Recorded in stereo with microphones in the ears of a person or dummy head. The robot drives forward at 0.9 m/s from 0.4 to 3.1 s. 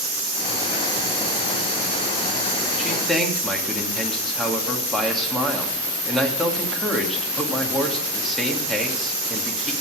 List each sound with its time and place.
2.8 s a man speaking: centre (ahead or behind), 2 m